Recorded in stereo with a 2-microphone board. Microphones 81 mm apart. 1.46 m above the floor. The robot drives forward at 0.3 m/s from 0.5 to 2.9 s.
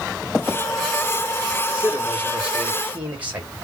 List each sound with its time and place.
1.7 s a man speaking: 20° right (ahead or behind), 2 m